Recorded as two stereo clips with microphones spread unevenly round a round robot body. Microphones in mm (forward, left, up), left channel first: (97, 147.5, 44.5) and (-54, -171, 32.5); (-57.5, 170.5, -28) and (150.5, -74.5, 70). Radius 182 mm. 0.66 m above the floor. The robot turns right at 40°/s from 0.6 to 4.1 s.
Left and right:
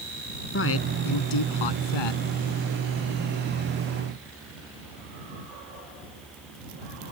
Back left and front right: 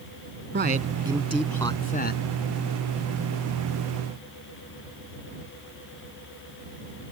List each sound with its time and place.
0.5 s a man speaking: 10° left; by 2.2 s 75° left